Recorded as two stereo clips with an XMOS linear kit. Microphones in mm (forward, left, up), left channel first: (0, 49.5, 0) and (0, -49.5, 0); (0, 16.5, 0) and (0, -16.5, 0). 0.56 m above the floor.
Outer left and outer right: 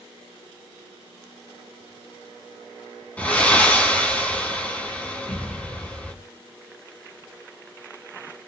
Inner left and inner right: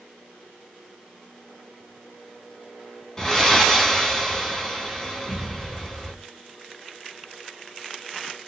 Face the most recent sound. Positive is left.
turn(degrees=15)  # may be behind; listen again after turning